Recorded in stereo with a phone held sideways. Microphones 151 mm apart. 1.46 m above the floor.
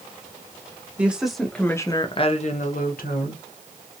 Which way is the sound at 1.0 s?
10° right (ahead or behind).